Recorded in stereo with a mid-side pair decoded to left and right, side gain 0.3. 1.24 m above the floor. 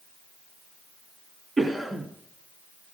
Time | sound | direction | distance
1.6 | a cough | 40° right | 2.5 m